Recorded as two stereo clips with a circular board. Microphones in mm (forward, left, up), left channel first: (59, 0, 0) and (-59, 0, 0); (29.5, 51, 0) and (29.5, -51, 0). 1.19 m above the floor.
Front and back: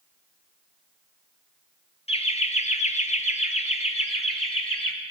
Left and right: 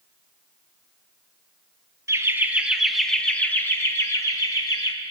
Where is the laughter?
30° right, 1.1 m; by 4.9 s 40° left, 1.9 m.